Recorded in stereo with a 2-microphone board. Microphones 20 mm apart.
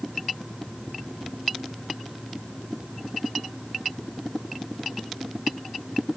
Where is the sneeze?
I don't hear a sneeze.